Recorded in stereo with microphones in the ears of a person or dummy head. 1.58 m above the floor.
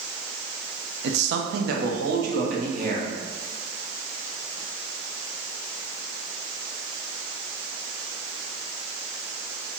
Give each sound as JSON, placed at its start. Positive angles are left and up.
{"t": 1.0, "sound": "a man speaking", "side_deg": -65, "distance_m": 0.7}